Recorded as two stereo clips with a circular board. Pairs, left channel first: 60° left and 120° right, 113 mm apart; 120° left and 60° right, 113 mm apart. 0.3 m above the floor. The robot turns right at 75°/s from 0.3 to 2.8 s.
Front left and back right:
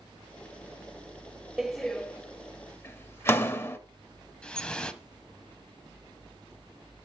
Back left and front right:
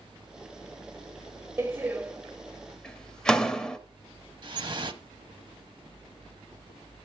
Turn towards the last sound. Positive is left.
turn(degrees=-20)